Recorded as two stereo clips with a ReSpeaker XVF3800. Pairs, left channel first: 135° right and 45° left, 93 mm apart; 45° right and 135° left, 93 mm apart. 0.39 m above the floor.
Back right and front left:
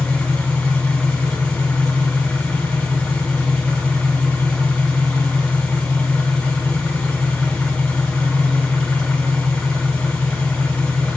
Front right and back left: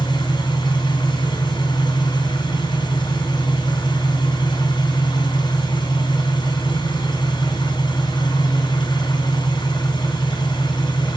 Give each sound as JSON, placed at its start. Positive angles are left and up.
{"t": 0.0, "sound": "an engine running", "azimuth_deg": -55, "distance_m": 2.0}